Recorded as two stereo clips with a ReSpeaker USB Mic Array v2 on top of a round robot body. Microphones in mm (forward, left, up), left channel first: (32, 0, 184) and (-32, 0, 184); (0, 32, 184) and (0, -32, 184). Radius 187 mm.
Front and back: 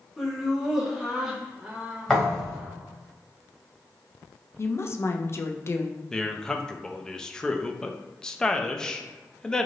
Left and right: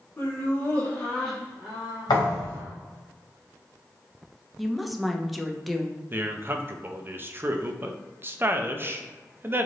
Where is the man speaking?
70° right, 0.6 m.